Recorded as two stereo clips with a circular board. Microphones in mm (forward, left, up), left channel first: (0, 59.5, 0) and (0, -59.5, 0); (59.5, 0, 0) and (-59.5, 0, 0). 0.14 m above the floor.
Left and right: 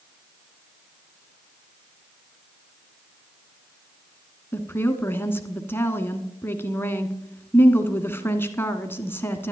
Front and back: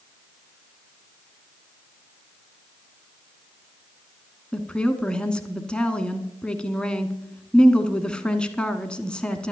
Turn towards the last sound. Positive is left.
turn(degrees=65)